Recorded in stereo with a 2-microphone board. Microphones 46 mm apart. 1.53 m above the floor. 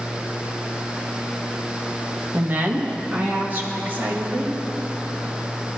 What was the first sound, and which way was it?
A woman speaking, 35° right (ahead or behind).